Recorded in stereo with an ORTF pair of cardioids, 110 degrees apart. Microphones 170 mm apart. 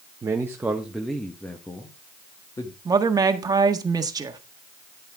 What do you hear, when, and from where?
0.2 s a man speaking: 25° right, 1.2 m; by 2.8 s 25° left, 2 m
2.9 s a woman speaking: 25° right, 1.7 m